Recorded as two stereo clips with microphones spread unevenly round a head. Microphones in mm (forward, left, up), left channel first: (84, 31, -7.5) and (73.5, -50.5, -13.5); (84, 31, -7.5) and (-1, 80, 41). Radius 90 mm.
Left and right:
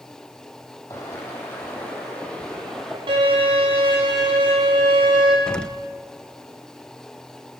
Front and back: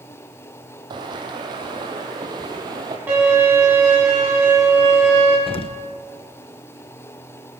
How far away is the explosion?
About 0.7 m.